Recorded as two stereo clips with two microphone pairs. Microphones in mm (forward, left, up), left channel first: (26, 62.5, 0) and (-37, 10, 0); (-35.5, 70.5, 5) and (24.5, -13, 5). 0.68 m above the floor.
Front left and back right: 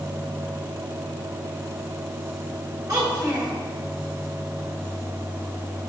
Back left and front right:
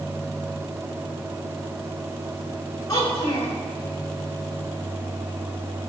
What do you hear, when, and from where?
2.9 s a child speaking: 175° left, 3 m